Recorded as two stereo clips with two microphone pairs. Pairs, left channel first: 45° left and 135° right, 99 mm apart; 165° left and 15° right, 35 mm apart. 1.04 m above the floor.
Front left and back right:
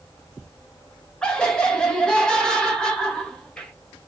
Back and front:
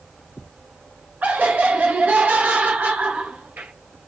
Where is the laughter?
35° right, 1.7 m.